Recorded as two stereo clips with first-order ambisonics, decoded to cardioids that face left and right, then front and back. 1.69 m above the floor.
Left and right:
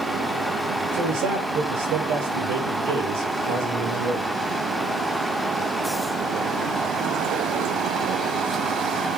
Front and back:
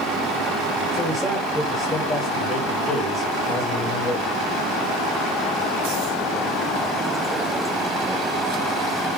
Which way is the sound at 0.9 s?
85° right.